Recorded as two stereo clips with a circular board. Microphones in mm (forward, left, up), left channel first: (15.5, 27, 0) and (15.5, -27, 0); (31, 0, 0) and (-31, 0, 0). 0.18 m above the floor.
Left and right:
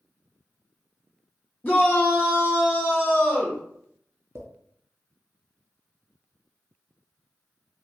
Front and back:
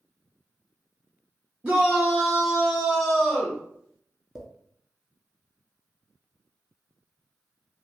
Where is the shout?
120° left, 1.4 m; by 3.6 s 45° left, 1.4 m.